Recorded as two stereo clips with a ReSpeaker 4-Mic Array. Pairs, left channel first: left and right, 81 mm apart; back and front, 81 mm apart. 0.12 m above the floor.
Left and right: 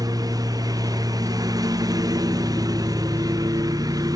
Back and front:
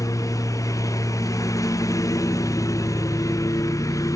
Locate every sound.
0.0 s a lawn mower: 130° right